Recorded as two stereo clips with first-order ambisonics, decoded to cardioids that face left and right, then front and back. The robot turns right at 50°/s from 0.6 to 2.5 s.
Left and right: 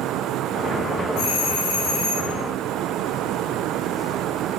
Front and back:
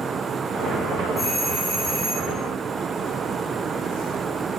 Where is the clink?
No clink in this recording.